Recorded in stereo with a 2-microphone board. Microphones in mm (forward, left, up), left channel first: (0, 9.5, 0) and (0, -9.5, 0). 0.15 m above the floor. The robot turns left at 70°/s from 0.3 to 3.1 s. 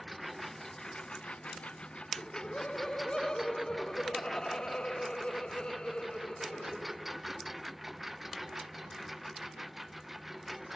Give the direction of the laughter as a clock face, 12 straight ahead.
8 o'clock.